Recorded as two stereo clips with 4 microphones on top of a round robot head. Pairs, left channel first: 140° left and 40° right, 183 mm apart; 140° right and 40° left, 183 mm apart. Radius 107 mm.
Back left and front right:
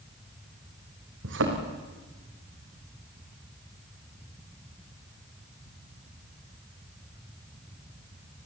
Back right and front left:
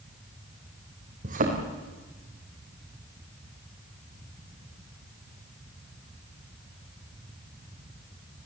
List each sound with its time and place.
1.2 s a thud: 10° right, 4 m